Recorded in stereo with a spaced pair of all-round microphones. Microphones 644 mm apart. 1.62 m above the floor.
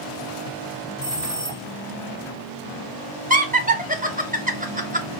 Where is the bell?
20° left (ahead or behind), 1.0 m.